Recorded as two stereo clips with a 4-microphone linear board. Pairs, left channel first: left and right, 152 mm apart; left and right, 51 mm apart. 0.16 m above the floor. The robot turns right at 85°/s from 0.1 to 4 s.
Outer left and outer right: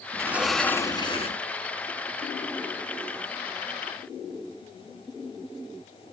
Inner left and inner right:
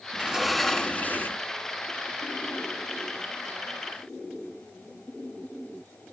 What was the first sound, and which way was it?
A sliding door, 30° right.